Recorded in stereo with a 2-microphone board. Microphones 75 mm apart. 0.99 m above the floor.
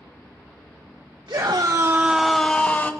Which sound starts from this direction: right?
A scream, at 1.3 s.